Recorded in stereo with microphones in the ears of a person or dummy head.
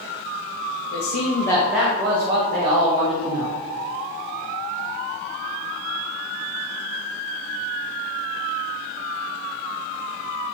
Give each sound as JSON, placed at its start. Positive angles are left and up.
{"t": 0.9, "sound": "a man speaking", "side_deg": 60, "distance_m": 0.8}